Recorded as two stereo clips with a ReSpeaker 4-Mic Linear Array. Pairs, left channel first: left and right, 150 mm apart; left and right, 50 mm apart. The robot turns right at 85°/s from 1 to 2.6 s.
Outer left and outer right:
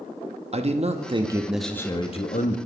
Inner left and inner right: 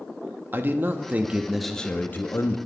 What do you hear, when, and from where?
0.5 s a man speaking: 50° right, 0.7 m; by 2.6 s 80° left, 0.7 m